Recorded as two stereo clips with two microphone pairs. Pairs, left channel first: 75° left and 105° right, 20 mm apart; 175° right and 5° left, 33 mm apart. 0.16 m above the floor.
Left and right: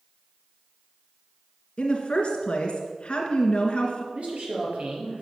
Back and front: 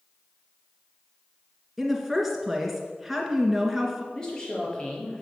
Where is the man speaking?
105° right, 4 m.